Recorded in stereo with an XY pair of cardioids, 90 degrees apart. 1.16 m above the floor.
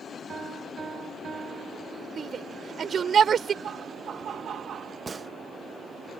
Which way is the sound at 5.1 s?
40° right.